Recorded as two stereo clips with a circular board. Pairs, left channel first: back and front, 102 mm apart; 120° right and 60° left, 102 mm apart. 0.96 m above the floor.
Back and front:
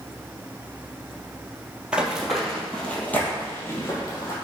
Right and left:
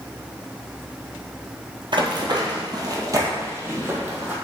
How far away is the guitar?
I don't hear a guitar.